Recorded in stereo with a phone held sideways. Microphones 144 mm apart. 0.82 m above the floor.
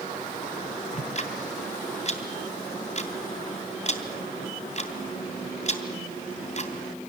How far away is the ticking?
About 2.5 m.